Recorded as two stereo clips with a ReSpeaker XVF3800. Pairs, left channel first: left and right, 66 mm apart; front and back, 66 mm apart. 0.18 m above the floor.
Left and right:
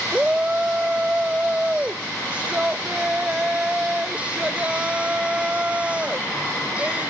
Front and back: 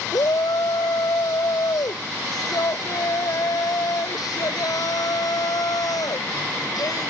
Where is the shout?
20° right.